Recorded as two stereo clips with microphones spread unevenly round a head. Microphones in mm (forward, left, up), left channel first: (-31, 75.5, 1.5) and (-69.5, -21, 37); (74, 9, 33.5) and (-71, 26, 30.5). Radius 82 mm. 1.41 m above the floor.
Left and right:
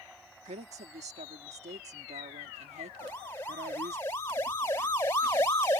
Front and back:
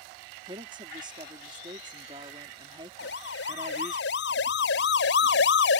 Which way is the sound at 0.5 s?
125° right.